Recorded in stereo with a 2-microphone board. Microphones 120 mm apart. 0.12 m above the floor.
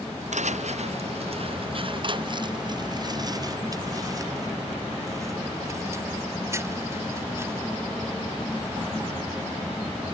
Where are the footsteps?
80° right; by 7.7 s 20° right (ahead or behind).